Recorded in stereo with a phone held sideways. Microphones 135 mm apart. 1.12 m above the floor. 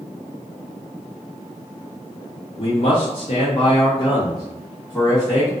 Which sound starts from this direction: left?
A man speaking, at 2.6 s.